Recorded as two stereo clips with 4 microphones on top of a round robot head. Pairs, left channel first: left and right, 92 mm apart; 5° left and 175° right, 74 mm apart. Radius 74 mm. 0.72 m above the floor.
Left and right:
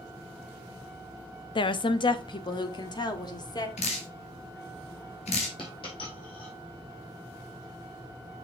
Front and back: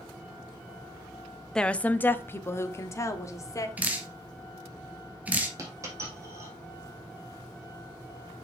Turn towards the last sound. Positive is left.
turn(degrees=135)